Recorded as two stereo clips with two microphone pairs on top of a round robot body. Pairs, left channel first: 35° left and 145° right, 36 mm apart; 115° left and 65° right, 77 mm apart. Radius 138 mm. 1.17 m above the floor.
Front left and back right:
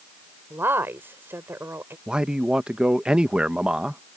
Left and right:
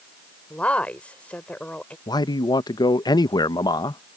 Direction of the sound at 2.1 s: 145° left.